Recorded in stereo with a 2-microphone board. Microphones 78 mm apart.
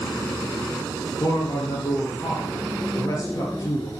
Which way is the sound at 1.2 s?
45° left (ahead or behind).